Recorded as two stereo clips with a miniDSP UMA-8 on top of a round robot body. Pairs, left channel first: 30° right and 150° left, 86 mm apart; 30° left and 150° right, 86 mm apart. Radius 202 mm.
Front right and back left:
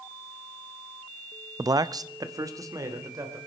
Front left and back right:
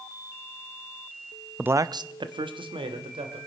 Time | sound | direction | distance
1.6 | a man speaking | 140° left | 0.6 m